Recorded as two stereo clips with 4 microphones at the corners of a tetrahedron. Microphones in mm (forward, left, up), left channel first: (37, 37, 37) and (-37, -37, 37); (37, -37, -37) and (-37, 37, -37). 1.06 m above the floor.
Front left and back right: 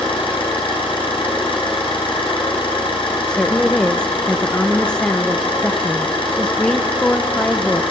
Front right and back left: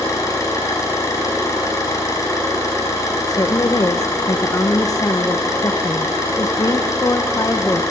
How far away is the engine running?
About 5.5 m.